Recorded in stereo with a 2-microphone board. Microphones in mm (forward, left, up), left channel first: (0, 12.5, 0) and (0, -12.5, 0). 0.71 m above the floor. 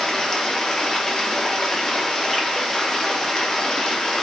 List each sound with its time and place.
0.0 s running water: 20° left (ahead or behind), 0.7 m